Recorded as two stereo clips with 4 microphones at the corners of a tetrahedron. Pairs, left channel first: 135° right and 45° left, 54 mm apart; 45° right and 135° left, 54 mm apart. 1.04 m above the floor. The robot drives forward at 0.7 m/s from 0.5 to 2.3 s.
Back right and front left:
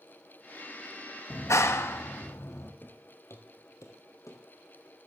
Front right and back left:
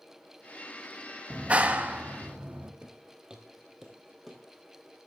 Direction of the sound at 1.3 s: 155° right.